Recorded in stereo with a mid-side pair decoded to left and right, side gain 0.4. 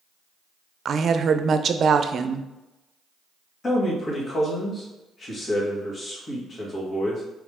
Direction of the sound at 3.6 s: 45° left.